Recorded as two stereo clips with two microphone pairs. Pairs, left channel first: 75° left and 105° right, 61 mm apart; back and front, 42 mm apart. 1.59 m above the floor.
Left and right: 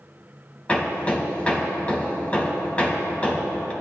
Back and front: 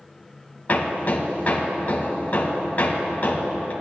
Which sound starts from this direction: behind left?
Hammering, at 0.7 s.